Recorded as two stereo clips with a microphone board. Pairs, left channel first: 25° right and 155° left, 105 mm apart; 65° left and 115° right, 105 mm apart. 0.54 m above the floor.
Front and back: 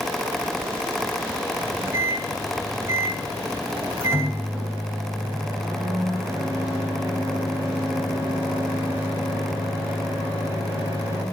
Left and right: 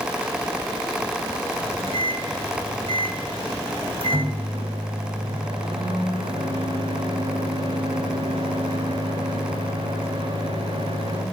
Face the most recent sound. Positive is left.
turn(degrees=-140)